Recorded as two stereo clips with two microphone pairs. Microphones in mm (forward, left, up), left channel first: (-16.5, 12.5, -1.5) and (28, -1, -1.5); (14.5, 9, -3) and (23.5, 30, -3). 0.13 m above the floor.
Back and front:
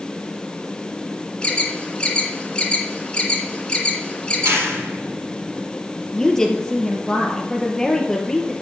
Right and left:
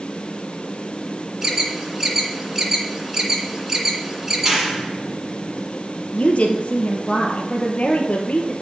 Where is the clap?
10° right, 3 m.